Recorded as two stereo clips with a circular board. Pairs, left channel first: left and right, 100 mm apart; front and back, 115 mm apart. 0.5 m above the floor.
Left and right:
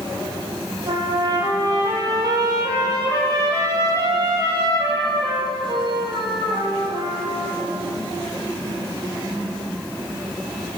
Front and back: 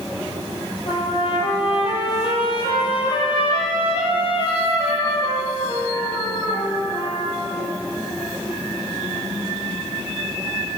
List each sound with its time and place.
0.9 s a trumpet: 40° right, 6 m